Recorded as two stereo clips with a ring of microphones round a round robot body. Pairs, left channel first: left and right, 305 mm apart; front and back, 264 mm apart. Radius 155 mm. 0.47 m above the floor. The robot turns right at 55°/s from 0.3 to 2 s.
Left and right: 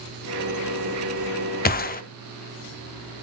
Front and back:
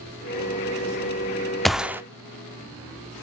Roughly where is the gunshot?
Left.